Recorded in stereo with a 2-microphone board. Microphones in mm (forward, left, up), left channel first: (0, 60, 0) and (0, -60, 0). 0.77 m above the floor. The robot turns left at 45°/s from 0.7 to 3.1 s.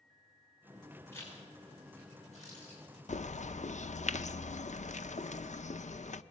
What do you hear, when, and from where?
1.1 s a zipper: 20° left (ahead or behind), 9 m; by 2.8 s 80° left, 9 m
3.1 s a bird: 80° left, 0.7 m